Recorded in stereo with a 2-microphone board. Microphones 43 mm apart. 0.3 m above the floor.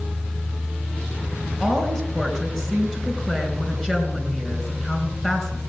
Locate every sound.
1.6 s a woman speaking: 15° left (ahead or behind), 3 m